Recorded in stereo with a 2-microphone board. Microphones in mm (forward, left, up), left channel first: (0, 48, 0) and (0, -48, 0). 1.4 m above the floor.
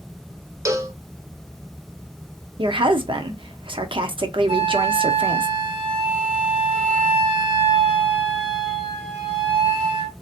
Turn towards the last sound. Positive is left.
turn(degrees=-75)  # may be behind; listen again after turning